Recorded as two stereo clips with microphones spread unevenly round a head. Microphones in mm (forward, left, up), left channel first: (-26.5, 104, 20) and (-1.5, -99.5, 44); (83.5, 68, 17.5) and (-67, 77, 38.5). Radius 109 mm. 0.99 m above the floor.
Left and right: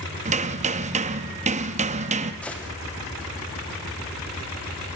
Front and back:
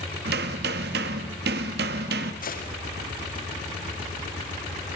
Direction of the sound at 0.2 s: 140° right.